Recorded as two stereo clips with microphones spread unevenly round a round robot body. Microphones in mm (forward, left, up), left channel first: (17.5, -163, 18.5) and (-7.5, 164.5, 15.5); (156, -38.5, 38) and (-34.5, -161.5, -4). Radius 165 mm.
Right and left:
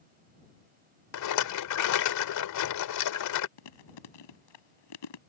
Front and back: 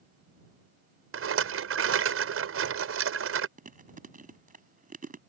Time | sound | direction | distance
1.1 | a rattle | 125° right | ?
3.6 | chewing | 90° right | ?